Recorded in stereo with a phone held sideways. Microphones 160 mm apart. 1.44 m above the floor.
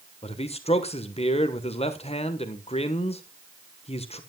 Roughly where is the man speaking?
Left.